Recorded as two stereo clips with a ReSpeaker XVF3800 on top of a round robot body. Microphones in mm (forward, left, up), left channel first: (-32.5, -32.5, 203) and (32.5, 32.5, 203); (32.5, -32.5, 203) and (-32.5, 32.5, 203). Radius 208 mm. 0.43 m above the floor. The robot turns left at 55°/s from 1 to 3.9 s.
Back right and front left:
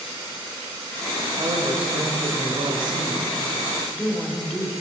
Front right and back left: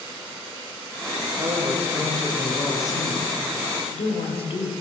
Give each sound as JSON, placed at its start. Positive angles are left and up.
{"t": 1.4, "sound": "a woman speaking", "azimuth_deg": 95, "distance_m": 3.0}